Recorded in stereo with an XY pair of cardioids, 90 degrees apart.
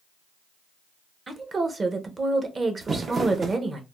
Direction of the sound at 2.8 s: 45° right.